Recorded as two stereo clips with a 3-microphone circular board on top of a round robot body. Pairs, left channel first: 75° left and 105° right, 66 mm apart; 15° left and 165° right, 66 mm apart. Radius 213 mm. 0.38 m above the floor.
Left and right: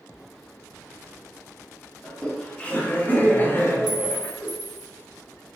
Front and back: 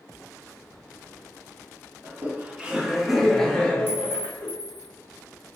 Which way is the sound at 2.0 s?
150° left.